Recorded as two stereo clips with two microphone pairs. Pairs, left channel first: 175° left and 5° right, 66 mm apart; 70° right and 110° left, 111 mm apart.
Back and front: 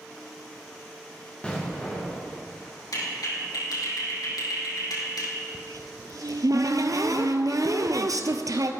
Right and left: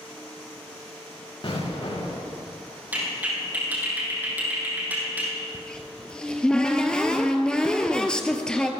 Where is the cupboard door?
10° left, 1.2 m.